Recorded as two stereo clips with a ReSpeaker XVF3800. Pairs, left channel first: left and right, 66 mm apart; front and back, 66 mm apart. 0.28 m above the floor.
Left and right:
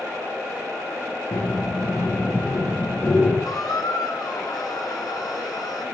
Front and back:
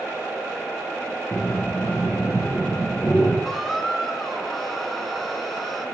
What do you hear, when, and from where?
1.3 s breathing: 70° left, 3.5 m
3.5 s a squeak: 85° left, 1.4 m